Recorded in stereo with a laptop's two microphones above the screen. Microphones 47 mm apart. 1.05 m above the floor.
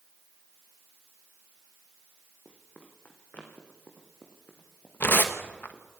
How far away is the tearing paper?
About 1.2 m.